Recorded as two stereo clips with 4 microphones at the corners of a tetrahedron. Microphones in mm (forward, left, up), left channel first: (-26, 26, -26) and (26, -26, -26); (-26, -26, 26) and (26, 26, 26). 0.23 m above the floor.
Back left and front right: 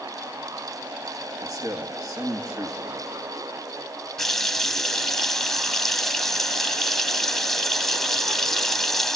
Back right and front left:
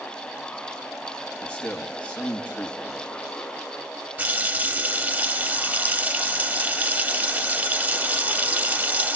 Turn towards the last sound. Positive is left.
turn(degrees=55)